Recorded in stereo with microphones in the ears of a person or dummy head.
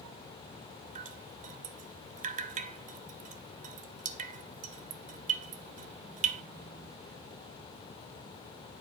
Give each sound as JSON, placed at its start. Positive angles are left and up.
{"t": 0.9, "sound": "dripping", "side_deg": -35, "distance_m": 0.8}